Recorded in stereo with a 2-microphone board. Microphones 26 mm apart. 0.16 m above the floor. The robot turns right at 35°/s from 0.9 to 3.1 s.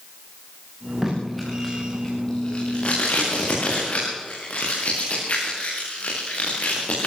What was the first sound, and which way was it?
Tape being pulled, 10° right (ahead or behind).